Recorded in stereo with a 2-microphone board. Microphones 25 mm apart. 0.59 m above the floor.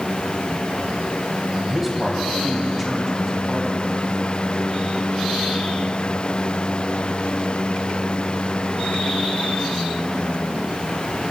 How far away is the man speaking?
About 3 m.